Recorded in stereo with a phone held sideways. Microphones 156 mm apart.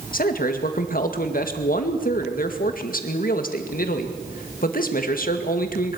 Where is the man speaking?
65° left (ahead or behind), 2 m.